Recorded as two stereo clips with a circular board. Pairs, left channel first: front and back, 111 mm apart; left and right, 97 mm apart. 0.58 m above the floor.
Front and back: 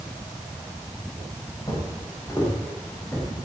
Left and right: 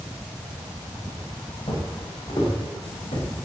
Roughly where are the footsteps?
Ahead left.